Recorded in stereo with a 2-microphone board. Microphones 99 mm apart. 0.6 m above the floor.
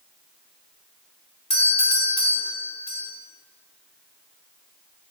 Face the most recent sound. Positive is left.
turn(degrees=65)  # may be behind; listen again after turning